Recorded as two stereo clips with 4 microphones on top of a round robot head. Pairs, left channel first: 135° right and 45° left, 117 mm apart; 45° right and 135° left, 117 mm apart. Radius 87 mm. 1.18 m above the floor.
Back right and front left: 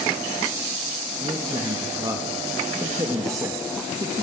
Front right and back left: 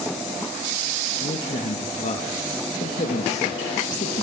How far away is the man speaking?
About 2.0 m.